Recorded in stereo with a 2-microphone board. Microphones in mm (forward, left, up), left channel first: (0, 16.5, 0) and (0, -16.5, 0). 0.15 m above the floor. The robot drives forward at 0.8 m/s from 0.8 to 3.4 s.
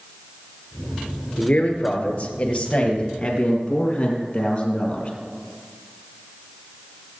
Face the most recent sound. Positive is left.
turn(degrees=25)  # may be behind; listen again after turning